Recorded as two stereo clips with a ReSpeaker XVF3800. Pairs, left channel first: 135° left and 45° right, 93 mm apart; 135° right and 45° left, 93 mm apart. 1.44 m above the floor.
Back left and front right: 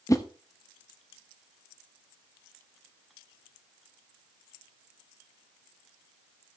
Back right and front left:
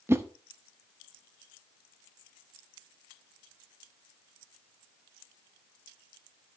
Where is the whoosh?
100° left, 0.9 m.